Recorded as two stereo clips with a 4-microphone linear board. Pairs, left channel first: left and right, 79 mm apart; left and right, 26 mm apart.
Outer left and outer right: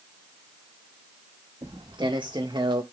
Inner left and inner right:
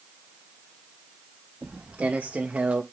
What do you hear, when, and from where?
1.6 s footsteps: 75° right (ahead or behind), 2.5 m; by 2.8 s 80° right, 1.6 m